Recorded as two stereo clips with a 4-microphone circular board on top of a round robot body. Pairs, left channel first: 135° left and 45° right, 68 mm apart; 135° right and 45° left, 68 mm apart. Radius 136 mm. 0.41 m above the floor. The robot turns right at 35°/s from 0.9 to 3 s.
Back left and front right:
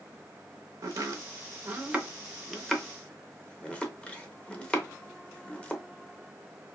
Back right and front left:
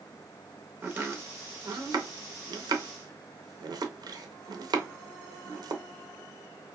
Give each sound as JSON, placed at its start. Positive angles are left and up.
{"t": 0.8, "sound": "chopping", "azimuth_deg": -10, "distance_m": 0.6}